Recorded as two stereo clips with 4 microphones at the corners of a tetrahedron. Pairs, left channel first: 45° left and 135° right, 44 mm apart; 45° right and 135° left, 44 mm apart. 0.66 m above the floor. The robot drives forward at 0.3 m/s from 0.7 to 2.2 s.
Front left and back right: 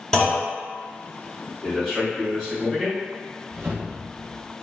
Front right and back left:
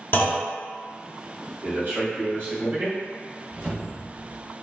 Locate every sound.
0.1 s a clunk: 35° right, 1.2 m
1.6 s a man speaking: 120° left, 1.4 m; by 3.0 s 130° left, 1.5 m
3.5 s a whoosh: 160° right, 0.8 m